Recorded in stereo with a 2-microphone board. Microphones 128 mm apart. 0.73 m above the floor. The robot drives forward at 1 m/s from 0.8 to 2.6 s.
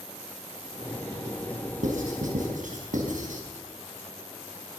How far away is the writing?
About 5.5 m.